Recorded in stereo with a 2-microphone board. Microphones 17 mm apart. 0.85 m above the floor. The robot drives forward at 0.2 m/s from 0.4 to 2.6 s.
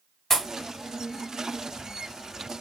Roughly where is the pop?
Left.